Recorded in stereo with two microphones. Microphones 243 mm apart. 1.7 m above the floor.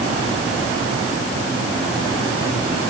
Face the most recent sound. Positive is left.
No sound to turn to.